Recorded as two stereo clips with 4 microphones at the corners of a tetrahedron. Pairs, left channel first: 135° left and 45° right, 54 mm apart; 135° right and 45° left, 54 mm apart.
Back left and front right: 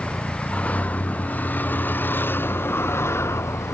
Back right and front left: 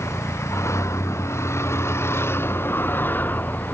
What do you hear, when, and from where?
0.0 s a vehicle: 160° right; by 3.7 s 165° left